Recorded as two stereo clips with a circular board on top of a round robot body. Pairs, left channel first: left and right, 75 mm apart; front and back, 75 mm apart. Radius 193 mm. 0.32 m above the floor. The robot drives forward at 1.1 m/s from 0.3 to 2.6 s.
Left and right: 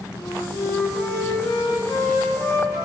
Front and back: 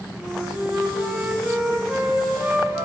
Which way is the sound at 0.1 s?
80° left.